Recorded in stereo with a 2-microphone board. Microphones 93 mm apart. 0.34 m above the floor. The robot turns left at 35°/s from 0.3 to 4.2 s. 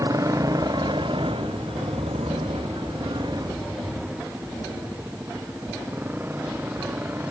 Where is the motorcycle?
40° right (ahead or behind); by 7.3 s 20° right (ahead or behind).